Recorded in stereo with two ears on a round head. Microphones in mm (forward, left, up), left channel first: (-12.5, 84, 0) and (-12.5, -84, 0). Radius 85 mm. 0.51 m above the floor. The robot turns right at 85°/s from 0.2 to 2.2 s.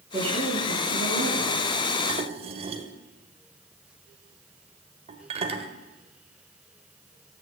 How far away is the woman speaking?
About 8.5 m.